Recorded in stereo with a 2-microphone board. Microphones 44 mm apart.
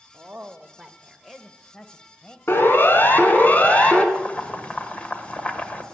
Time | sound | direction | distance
0.1 | a woman speaking | 35° right (ahead or behind) | 1.0 m
2.5 | a siren | 60° left (ahead or behind) | 2.5 m
4.2 | boiling | 30° left (ahead or behind) | 1.6 m